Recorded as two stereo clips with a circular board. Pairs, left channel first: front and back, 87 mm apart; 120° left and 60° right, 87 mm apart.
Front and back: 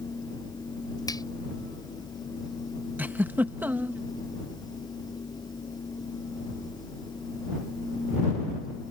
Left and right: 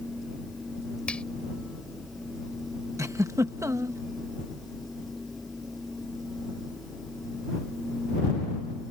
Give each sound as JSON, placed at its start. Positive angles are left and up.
{"t": 1.1, "sound": "a finger snap", "azimuth_deg": 40}
{"t": 3.0, "sound": "a giggle", "azimuth_deg": -110}